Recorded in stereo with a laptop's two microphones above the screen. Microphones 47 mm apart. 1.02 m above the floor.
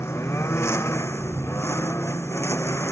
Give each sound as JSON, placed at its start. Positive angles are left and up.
{"t": 0.0, "sound": "a lawn mower", "side_deg": 75}